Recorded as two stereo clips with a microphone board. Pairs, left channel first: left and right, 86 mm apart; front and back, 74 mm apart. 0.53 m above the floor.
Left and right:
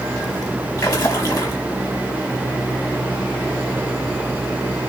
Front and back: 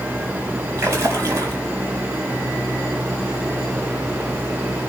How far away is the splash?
About 4.5 m.